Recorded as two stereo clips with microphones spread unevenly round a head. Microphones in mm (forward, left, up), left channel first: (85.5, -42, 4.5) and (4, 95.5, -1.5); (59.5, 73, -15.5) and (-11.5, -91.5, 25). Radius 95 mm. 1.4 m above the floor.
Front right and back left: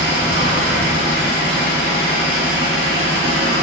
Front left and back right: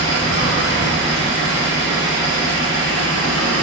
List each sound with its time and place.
0.0 s an engine running: 110° left, 1.7 m